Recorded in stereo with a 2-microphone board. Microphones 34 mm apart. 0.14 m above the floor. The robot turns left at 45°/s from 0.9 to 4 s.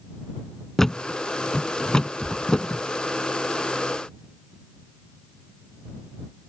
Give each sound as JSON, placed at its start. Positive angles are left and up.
{"t": 0.8, "sound": "a thud", "side_deg": 10}